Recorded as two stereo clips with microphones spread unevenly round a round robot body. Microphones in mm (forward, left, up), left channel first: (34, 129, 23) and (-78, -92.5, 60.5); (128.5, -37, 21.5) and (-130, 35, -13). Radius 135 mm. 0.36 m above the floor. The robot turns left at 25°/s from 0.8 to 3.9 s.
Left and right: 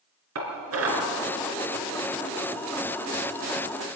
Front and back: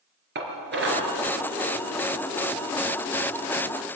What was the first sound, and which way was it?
Dishes clattering, 145° right.